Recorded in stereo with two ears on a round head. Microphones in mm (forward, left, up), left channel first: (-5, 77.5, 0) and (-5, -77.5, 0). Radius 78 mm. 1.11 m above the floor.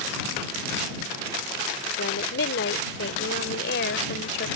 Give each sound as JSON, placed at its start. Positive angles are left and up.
{"t": 2.0, "sound": "a woman speaking", "side_deg": 75}